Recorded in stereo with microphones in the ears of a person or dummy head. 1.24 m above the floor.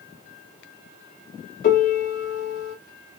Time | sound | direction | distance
1.6 | a piano | 50° left (ahead or behind) | 1.7 m